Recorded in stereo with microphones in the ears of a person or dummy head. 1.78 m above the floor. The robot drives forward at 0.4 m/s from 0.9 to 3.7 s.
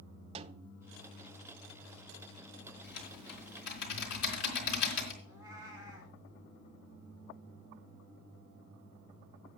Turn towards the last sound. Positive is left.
turn(degrees=-20)  # may be behind; listen again after turning